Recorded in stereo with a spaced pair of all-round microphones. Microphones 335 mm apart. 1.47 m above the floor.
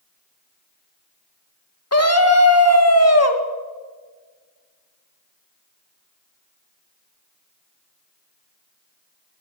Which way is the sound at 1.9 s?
45° left (ahead or behind).